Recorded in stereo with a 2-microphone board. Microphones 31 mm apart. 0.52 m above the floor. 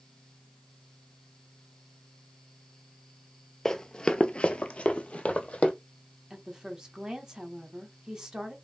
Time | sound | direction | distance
3.6 | running footsteps | 15° left (ahead or behind) | 0.6 m
6.3 | a woman speaking | 15° right (ahead or behind) | 1.0 m